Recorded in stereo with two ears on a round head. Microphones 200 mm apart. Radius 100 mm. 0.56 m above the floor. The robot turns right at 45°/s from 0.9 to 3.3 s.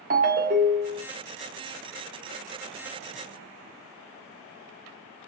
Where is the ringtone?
40° right (ahead or behind), 0.6 m.